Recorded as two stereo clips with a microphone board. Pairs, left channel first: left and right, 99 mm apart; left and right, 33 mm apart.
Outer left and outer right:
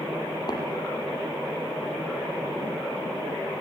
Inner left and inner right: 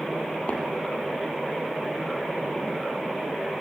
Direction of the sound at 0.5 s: 45° left (ahead or behind).